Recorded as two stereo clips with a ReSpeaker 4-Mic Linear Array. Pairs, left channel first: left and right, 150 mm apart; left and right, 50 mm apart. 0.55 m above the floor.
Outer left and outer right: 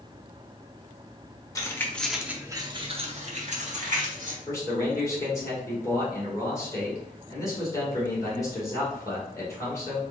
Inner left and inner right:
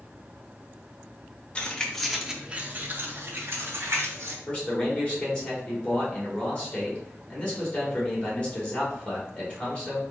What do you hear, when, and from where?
1.6 s keys jangling: 20° left (ahead or behind), 0.8 m; by 4.4 s 60° right (ahead or behind), 1.4 m
4.5 s a man speaking: 20° left (ahead or behind), 2.0 m